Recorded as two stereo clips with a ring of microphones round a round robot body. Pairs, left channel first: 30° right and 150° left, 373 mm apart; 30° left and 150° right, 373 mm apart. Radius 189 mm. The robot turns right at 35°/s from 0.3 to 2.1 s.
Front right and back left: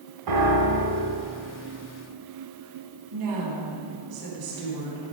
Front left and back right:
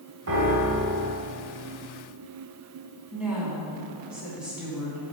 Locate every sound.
0.3 s a piano: 165° left, 1.5 m; by 1.2 s 165° right, 1.5 m
3.1 s a woman speaking: 125° left, 3 m